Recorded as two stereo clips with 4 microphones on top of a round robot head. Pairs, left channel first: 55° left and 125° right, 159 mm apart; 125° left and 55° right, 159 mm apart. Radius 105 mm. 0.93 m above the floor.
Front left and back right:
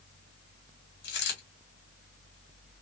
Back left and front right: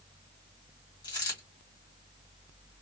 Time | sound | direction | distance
1.0 | a dropped coin | 60° left | 1.7 m